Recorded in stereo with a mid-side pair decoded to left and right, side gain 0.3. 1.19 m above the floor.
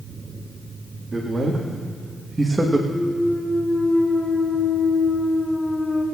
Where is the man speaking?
35° right, 1.9 m; by 2.8 s 20° right, 1.1 m.